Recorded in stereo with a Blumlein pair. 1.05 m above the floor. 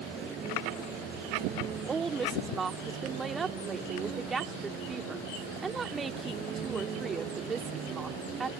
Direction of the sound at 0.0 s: 25° right.